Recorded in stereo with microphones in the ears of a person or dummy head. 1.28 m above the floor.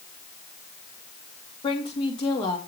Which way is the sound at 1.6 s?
25° left (ahead or behind).